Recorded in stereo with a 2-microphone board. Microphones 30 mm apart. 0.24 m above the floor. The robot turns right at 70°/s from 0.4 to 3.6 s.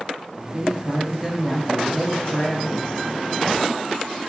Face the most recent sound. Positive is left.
turn(degrees=150)